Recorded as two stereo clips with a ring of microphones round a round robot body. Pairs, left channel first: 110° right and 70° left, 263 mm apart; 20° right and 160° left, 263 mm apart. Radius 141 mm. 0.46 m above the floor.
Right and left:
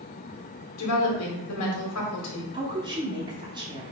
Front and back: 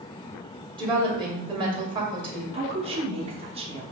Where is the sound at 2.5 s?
120° left, 0.8 m.